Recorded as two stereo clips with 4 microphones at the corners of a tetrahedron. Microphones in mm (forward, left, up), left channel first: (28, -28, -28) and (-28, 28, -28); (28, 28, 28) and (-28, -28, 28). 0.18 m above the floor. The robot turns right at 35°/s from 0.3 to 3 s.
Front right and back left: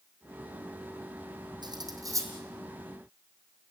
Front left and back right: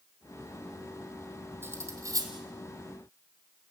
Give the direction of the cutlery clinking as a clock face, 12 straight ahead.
7 o'clock.